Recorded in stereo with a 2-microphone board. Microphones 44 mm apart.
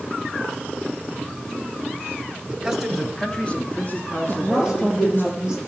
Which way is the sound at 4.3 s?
20° right (ahead or behind).